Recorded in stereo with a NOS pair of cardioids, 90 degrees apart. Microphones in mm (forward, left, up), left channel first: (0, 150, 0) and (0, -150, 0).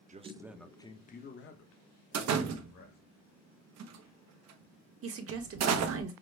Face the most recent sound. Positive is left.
turn(degrees=-50)